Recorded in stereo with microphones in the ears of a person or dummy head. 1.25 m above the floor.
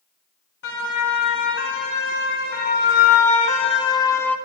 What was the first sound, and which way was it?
A siren, 70° left (ahead or behind).